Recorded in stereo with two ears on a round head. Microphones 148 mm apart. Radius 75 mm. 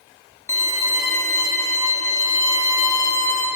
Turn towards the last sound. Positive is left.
turn(degrees=20)  # may be behind; listen again after turning